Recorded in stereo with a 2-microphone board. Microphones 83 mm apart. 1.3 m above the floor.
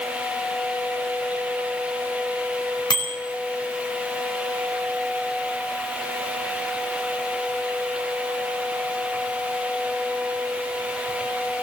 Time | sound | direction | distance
2.9 | a bicycle bell | 60° left (ahead or behind) | 4 m